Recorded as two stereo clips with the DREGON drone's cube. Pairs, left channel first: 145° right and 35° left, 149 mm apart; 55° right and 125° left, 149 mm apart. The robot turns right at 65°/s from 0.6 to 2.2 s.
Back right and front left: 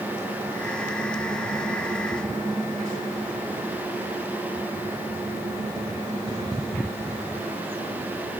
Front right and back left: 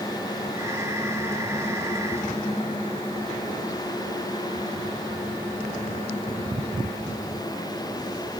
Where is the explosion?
No explosion in this recording.